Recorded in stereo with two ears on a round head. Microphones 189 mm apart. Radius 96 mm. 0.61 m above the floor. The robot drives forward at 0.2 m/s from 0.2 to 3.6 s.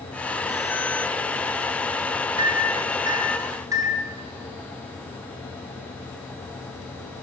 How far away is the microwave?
About 0.5 m.